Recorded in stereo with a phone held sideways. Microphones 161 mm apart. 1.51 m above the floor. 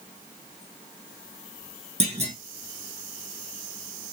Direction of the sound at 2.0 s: 40° right (ahead or behind).